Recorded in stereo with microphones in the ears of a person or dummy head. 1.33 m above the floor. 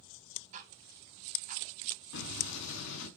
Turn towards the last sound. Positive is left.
turn(degrees=70)  # may be behind; listen again after turning